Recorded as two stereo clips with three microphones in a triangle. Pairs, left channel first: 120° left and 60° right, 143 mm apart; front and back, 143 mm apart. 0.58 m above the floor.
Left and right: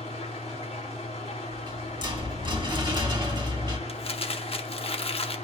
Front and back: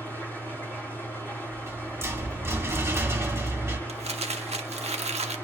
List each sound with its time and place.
0.0 s an engine running: 75° left, 5 m
1.5 s a rattle: 115° right, 1.7 m
3.9 s crumpling: 155° left, 0.9 m